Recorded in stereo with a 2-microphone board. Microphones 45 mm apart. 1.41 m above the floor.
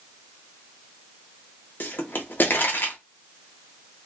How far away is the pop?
About 0.8 m.